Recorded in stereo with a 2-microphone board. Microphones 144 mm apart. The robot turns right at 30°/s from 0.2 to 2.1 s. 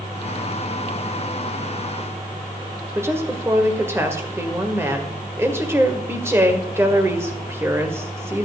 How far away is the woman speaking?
About 1.7 m.